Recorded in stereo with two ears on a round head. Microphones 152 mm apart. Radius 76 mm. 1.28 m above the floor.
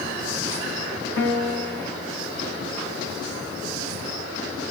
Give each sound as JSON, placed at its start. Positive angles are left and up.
{"t": 1.2, "sound": "a piano", "side_deg": 65, "distance_m": 1.0}